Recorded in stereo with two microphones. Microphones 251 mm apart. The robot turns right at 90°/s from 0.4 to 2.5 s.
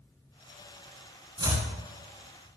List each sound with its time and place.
1.4 s chopping: 25° right (ahead or behind), 0.6 m; by 1.7 s 5° left (ahead or behind), 0.6 m